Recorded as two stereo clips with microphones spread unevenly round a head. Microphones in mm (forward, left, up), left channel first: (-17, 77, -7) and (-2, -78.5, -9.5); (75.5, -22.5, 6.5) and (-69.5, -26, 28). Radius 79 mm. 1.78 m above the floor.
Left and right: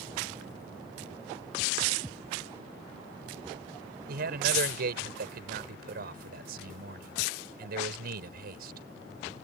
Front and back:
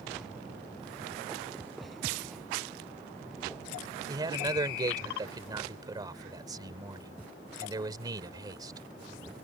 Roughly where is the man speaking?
Behind right.